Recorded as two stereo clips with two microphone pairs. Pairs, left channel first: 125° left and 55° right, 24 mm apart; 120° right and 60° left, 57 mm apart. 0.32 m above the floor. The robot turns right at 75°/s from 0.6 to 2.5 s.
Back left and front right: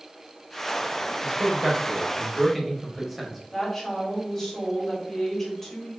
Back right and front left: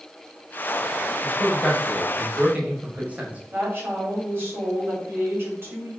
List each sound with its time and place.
1.2 s a man speaking: 85° right, 1.3 m; by 3.4 s 10° left, 1.3 m
3.5 s a woman speaking: 40° left, 1.8 m